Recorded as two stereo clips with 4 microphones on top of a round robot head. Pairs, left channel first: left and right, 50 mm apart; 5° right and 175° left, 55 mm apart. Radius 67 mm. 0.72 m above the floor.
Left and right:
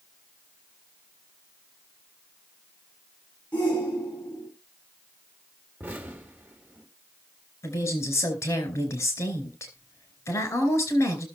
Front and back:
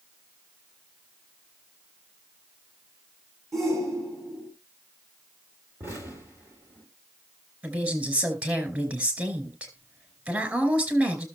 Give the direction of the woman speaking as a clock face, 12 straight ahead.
8 o'clock.